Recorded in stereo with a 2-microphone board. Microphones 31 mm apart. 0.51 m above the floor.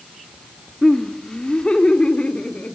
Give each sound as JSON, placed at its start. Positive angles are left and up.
{"t": 0.8, "sound": "laughter", "side_deg": 20, "distance_m": 1.4}